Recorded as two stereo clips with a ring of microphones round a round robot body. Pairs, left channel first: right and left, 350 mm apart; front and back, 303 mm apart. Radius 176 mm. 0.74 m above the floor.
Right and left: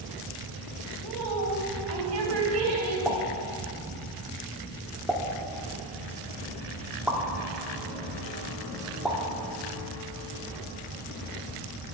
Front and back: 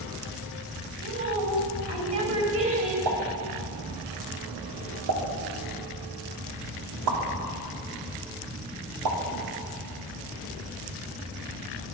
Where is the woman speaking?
140° left, 3.5 m.